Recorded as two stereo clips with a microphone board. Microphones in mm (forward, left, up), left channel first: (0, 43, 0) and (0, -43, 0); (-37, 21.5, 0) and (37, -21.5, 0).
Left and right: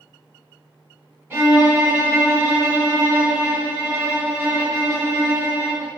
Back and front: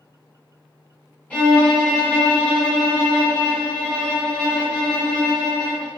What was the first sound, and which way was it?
A violin, 145° right.